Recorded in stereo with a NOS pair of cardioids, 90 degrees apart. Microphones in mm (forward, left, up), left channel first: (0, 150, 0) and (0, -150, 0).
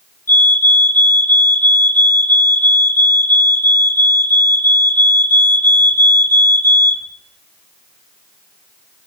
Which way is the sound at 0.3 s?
5° left.